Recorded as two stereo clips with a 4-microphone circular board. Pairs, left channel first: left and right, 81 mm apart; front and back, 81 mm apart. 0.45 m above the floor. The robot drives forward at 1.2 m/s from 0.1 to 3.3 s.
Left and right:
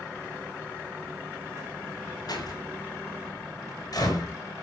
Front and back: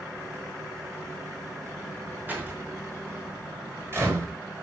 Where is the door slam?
115° left, 5 m; by 4.3 s 125° left, 5.5 m.